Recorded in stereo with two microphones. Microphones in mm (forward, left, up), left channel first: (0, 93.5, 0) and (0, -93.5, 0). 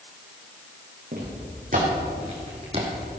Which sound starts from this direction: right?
Footsteps, at 1.1 s.